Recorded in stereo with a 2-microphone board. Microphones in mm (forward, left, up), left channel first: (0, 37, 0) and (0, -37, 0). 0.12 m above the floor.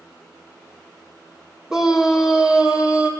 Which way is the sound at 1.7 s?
5° right (ahead or behind).